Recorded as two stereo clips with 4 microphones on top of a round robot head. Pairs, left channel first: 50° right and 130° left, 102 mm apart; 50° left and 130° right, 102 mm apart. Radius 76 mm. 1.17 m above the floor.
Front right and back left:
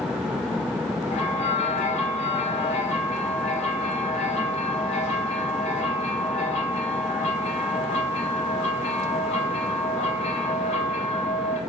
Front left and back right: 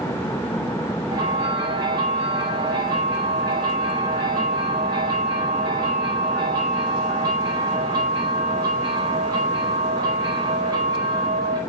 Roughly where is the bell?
Right.